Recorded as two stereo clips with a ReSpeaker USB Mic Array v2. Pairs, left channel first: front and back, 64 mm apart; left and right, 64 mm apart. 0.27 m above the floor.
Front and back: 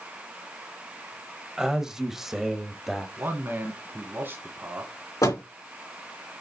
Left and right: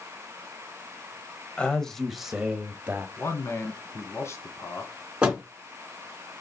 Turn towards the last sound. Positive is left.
turn(degrees=-15)